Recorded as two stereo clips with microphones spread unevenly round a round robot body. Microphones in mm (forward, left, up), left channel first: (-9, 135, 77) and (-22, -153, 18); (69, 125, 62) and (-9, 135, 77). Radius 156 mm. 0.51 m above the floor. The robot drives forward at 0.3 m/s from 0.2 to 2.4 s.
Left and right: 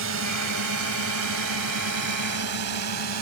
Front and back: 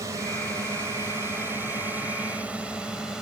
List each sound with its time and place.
0.0 s a drone: 125° right; by 3.2 s 100° right